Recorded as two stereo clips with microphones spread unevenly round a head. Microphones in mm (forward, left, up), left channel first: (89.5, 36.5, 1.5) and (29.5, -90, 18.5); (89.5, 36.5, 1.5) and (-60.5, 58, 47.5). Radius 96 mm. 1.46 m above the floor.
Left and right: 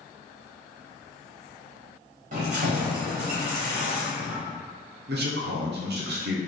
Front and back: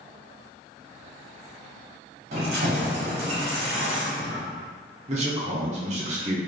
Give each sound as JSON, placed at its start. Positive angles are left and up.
{"t": 2.3, "sound": "keys jangling", "azimuth_deg": -150, "distance_m": 1.1}
{"t": 5.1, "sound": "a man speaking", "azimuth_deg": -130, "distance_m": 0.9}